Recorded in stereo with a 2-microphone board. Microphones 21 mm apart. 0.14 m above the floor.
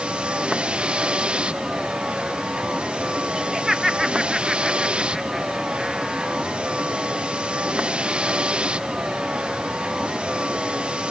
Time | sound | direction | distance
0.0 | a vehicle | 55° right (ahead or behind) | ?
3.4 | laughter | 20° right (ahead or behind) | ?